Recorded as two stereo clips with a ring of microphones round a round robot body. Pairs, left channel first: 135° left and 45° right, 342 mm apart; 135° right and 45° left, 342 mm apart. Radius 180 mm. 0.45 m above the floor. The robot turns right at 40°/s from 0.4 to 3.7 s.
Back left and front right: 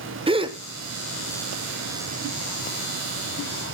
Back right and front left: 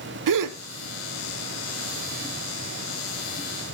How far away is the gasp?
About 1.0 m.